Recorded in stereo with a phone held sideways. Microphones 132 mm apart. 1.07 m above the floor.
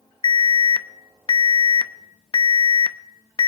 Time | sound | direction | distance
0.2 | an alarm | 40° left (ahead or behind) | 0.6 m